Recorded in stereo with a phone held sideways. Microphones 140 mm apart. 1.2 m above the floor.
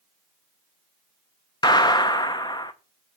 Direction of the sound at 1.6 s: 30° left (ahead or behind).